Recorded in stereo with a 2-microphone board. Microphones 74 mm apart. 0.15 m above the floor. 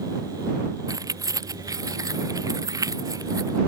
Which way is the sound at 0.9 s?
50° right (ahead or behind).